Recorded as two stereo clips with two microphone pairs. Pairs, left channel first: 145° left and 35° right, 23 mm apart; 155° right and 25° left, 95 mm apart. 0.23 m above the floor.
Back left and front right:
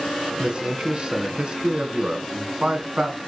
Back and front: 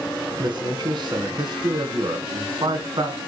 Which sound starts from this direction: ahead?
A man speaking, at 0.4 s.